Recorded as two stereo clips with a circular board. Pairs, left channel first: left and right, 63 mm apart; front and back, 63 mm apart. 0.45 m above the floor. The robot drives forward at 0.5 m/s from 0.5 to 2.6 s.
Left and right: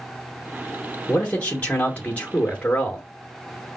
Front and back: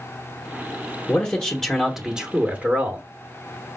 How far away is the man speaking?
About 0.9 m.